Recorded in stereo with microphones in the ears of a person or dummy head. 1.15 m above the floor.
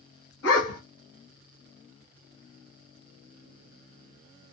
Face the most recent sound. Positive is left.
turn(degrees=60)  # may be behind; listen again after turning